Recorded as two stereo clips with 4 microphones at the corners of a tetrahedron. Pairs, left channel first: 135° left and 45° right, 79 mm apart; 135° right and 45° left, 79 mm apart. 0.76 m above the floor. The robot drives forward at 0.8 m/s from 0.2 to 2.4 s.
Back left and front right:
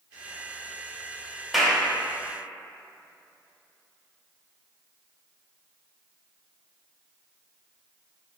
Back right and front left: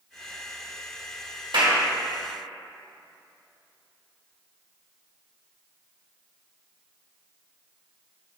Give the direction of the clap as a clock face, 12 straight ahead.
11 o'clock.